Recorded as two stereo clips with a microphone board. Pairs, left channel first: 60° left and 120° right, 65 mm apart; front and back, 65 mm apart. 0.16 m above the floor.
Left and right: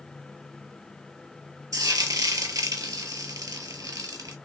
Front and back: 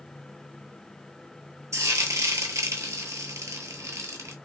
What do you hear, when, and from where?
1.7 s frying: 145° right, 0.7 m